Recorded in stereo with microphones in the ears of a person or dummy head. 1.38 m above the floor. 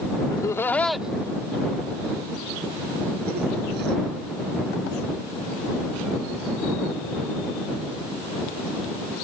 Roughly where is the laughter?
Centre.